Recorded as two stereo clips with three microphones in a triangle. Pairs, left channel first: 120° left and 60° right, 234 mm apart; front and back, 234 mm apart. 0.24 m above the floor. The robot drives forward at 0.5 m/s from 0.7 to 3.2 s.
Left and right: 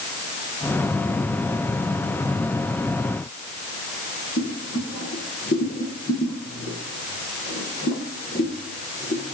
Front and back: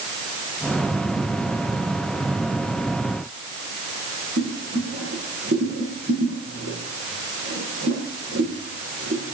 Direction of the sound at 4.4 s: 155° left.